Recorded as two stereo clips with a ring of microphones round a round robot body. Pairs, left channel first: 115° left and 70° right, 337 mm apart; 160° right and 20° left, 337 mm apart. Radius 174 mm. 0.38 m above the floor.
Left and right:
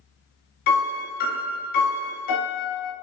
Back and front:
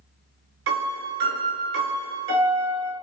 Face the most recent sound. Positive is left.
turn(degrees=50)